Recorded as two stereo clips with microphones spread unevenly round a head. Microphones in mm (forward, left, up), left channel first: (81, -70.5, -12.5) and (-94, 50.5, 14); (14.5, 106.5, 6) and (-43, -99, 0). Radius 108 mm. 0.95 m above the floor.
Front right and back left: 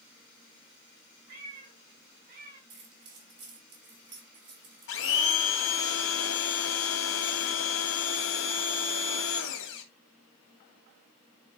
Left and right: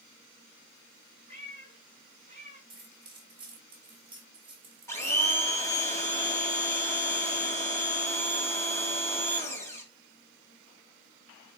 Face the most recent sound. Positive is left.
turn(degrees=-5)